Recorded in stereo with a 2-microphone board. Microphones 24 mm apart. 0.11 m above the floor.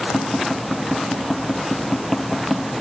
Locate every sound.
0.1 s tapping: 10° left (ahead or behind), 1.2 m